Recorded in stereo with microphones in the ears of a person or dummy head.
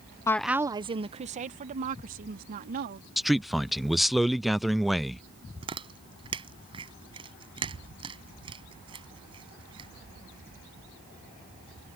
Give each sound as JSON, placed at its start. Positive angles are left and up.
{"t": 0.3, "sound": "a woman speaking", "side_deg": 20}
{"t": 3.2, "sound": "a man speaking", "side_deg": 0}
{"t": 5.6, "sound": "chewing", "side_deg": -30}